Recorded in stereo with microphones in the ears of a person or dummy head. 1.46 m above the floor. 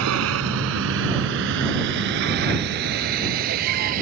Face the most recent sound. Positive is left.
turn(degrees=-45)  # may be behind; listen again after turning